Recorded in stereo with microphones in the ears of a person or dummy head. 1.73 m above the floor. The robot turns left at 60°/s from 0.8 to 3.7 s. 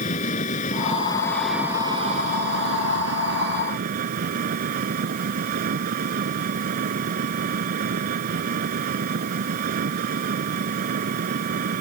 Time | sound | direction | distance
0.0 | an engine running | 35° left | ?